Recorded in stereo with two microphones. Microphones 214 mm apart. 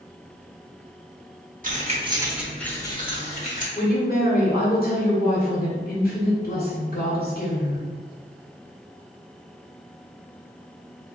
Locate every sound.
1.6 s keys jangling: 45° right (ahead or behind), 0.7 m; by 3.6 s 40° left (ahead or behind), 1.0 m
3.8 s a woman speaking: 50° left (ahead or behind), 1.9 m